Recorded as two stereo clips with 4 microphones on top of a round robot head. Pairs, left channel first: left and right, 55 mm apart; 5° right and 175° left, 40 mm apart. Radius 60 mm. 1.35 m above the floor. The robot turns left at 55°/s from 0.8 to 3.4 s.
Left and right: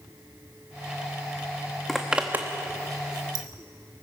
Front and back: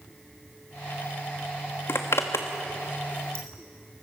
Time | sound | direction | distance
1.9 | a zipper | straight ahead | 1.0 m